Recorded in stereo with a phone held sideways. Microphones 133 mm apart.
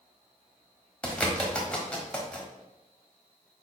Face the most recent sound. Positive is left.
turn(degrees=10)  # may be behind; listen again after turning